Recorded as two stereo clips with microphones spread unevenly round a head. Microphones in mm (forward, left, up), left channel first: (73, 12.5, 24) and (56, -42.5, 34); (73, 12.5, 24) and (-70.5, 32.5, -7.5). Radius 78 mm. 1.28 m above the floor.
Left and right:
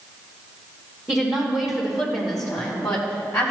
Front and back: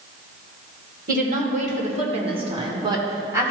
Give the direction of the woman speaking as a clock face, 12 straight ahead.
7 o'clock.